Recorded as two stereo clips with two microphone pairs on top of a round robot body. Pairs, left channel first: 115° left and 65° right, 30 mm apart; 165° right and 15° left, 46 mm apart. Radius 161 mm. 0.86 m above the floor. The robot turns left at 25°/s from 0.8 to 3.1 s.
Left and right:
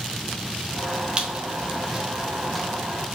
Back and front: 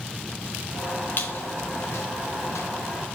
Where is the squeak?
115° right, 0.8 m; by 2.7 s 155° right, 0.8 m.